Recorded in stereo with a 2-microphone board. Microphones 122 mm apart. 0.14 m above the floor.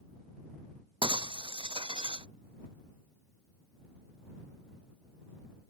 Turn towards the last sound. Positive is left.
turn(degrees=-45)  # may be behind; listen again after turning